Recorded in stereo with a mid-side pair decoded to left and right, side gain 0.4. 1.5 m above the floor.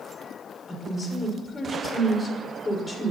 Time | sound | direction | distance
0.7 | a woman speaking | 25° left | 5.5 m